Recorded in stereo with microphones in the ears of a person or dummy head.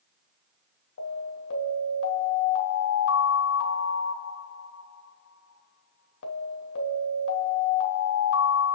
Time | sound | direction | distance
1.0 | an alarm | 75° left (ahead or behind) | 3 m